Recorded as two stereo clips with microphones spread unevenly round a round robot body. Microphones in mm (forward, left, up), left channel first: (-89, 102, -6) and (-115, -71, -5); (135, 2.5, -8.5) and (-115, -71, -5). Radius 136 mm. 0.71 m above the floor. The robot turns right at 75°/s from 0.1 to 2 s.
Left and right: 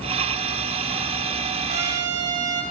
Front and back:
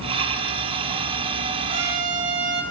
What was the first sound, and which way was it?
A trumpet, 125° right.